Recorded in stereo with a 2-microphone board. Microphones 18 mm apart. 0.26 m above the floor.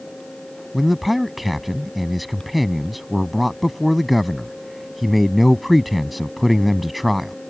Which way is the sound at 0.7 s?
5° right (ahead or behind).